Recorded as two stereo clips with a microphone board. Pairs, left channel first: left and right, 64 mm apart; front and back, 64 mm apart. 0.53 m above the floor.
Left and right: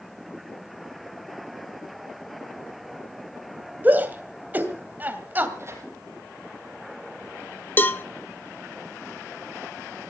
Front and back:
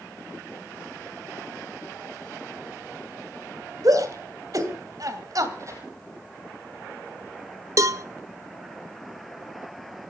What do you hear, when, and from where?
3.8 s a shout: 150° right, 2.5 m
5.6 s tearing paper: 140° right, 5.5 m
7.8 s a cowbell: 145° left, 0.7 m